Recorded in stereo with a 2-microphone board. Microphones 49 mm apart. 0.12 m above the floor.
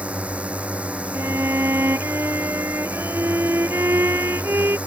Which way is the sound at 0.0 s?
25° right (ahead or behind).